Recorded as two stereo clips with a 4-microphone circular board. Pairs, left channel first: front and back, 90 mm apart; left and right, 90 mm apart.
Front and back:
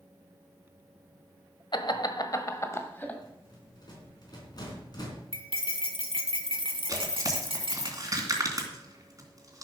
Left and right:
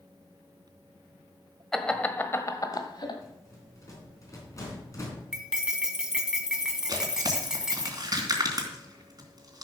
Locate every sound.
1.7 s laughter: 5° left, 1.4 m; by 3.2 s 70° left, 1.7 m
3.2 s a rattle: 40° left, 4 m
5.3 s cutlery clinking: 175° right, 1.4 m
6.9 s tearing paper: 130° right, 2.5 m